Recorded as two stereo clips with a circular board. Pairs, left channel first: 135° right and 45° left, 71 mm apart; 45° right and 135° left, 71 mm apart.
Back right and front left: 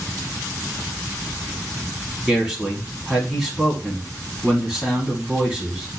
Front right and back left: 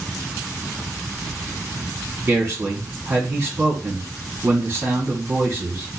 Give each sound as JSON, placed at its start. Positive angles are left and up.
{"t": 2.3, "sound": "a man speaking", "azimuth_deg": 110, "distance_m": 1.3}